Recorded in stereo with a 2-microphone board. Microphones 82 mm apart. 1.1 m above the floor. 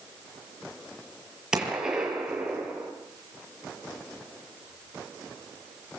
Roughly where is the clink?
I don't hear a clink.